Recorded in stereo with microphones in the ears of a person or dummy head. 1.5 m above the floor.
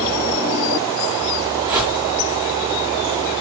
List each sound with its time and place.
1.6 s a whoosh: 20° right (ahead or behind), 2 m